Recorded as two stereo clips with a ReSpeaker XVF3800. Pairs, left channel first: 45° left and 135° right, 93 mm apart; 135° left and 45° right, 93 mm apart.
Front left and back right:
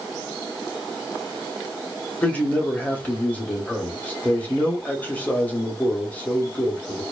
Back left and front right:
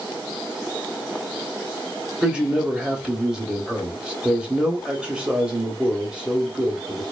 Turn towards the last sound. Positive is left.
turn(degrees=15)